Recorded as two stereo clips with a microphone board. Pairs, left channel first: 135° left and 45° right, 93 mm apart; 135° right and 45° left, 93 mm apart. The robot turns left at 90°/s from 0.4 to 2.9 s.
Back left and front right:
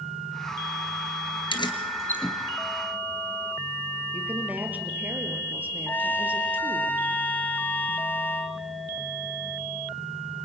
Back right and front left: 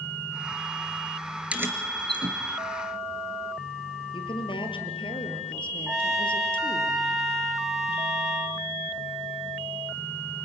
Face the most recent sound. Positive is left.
turn(degrees=120)